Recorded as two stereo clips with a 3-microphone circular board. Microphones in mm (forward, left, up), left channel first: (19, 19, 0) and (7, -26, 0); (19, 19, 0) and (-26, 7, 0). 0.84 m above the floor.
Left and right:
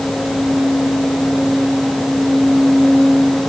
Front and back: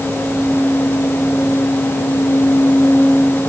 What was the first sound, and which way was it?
Only background noise.